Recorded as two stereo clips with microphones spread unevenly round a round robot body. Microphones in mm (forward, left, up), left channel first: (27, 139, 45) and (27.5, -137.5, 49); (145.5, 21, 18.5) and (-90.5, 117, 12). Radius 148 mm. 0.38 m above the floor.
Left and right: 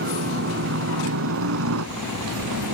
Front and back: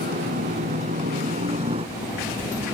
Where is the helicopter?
140° right; by 2.7 s 125° right.